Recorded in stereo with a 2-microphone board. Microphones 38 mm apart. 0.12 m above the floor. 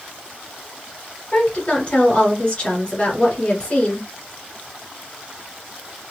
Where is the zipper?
I don't hear a zipper.